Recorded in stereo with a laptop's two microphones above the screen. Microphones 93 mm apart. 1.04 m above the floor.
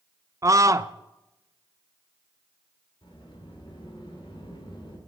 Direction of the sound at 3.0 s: 65° left (ahead or behind).